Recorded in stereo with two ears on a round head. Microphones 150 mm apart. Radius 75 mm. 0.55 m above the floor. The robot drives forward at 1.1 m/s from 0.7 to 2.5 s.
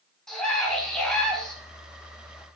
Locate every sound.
0.3 s a scream: 5° left (ahead or behind), 7 m